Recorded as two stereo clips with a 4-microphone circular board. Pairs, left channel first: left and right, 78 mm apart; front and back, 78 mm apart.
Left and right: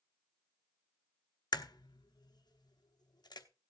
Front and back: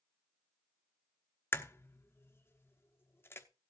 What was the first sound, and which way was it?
A crack, 60° left.